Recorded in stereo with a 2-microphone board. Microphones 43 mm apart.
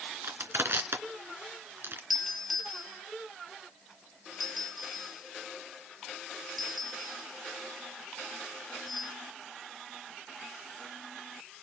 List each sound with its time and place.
0.2 s crushing: 60° right (ahead or behind), 2.5 m
2.1 s a doorbell: centre (ahead or behind), 6.5 m